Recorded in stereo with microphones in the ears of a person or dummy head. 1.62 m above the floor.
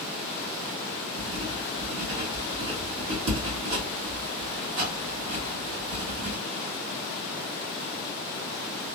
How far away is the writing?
About 2 m.